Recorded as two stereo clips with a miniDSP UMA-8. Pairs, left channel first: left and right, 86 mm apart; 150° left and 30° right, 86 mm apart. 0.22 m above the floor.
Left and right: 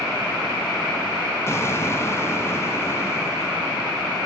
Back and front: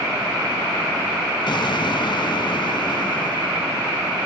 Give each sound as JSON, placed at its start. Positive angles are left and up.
{"t": 1.5, "sound": "an explosion", "azimuth_deg": 145, "distance_m": 0.7}